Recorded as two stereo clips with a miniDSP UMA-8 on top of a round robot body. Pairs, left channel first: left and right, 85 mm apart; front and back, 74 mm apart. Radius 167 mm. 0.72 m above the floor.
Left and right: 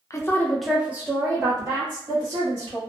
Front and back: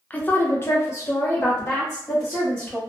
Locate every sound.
0.1 s a woman speaking: 60° left, 0.7 m; by 2.8 s 65° right, 1.5 m